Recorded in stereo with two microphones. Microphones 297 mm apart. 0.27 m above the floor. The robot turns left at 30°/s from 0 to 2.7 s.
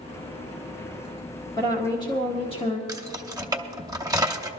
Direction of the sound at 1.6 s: 15° left (ahead or behind).